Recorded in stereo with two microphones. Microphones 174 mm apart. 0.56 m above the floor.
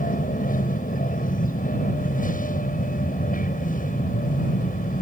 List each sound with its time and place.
0.0 s an aircraft: 50° left (ahead or behind)